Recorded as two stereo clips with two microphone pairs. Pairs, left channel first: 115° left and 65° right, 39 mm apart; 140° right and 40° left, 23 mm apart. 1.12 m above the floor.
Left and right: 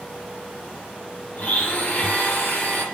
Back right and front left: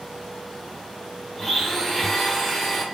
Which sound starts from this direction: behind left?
A blender, at 1.4 s.